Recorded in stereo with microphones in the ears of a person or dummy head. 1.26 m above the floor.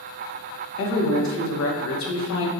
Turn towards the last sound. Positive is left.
turn(degrees=70)  # may be behind; listen again after turning